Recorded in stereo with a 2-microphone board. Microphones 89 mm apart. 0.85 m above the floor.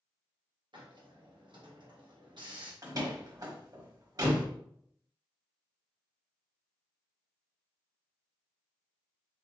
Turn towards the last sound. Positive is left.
turn(degrees=-45)  # may be behind; listen again after turning